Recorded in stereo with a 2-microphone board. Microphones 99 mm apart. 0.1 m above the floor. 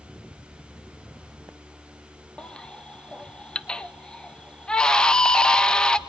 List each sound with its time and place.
2.4 s a baby crying: 10° left (ahead or behind), 0.6 m